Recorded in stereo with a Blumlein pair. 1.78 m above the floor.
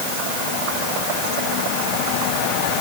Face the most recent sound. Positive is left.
No sound to turn to.